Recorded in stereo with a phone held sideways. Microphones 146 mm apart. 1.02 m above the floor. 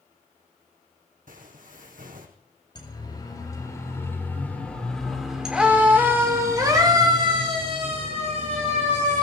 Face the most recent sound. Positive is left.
turn(degrees=-55)  # may be behind; listen again after turning